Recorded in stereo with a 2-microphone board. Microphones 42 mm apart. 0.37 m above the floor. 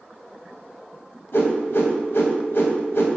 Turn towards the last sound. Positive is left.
turn(degrees=70)  # may be behind; listen again after turning